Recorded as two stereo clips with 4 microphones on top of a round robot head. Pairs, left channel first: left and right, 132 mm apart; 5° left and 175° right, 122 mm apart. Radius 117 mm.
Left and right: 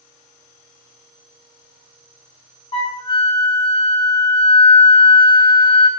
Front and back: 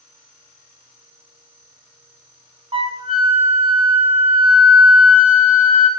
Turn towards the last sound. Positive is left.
turn(degrees=145)